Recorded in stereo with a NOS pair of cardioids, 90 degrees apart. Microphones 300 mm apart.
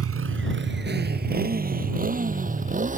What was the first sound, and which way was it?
A motorcycle, 50° right.